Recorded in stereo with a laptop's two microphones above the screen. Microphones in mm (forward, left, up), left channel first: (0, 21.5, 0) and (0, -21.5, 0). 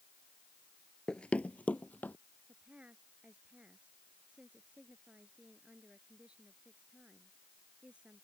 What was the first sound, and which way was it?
Running footsteps, 20° left (ahead or behind).